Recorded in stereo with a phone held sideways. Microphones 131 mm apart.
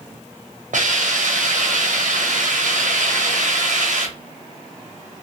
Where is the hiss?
70° right (ahead or behind), 0.6 m.